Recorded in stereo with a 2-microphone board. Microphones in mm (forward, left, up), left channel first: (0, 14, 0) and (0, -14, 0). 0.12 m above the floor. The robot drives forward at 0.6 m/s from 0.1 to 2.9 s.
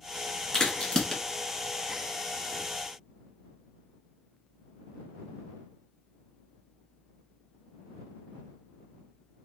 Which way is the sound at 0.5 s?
25° left (ahead or behind).